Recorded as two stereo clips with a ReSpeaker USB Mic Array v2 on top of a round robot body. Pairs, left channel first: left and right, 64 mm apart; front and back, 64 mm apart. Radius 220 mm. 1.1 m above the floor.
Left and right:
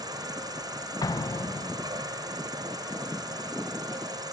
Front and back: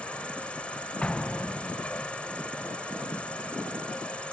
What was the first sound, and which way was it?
An insect, 75° right.